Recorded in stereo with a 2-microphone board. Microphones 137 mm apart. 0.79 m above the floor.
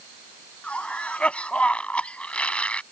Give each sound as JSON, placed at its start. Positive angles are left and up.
{"t": 0.6, "sound": "a cough", "side_deg": 10}